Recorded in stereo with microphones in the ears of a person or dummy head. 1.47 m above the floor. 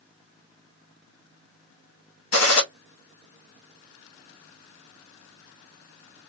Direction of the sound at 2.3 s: 75° left (ahead or behind).